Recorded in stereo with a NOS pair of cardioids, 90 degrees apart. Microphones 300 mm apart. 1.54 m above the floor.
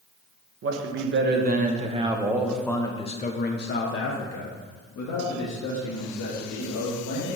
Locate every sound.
0.6 s a man speaking: 45° right, 1.4 m; by 7.4 s 75° left, 2.5 m